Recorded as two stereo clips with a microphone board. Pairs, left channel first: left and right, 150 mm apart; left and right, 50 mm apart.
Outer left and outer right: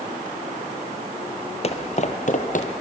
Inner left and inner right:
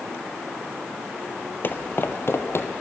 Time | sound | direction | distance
1.6 | footsteps | 45° left (ahead or behind) | 1.3 m